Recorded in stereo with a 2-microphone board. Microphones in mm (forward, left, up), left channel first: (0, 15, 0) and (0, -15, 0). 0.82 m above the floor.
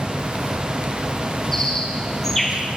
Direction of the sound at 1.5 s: 15° left (ahead or behind).